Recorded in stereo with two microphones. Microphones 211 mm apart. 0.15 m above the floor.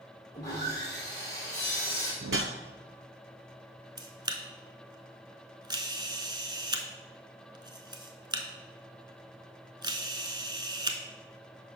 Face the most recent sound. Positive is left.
turn(degrees=-20)  # may be behind; listen again after turning